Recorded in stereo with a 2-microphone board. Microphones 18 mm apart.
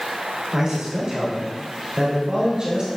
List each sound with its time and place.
0.5 s a man speaking: 40° right (ahead or behind), 3.5 m